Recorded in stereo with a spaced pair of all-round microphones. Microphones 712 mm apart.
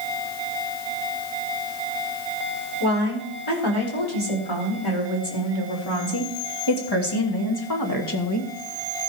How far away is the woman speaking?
About 4.5 m.